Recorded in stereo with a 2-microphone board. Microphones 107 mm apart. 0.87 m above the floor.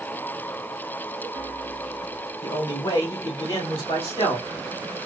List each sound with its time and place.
2.4 s a man speaking: 45° left (ahead or behind), 1.6 m; by 4.5 s 70° left (ahead or behind), 2 m